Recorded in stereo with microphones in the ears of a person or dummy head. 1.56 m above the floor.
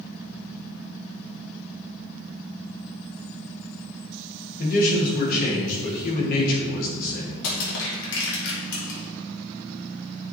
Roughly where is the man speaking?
Left.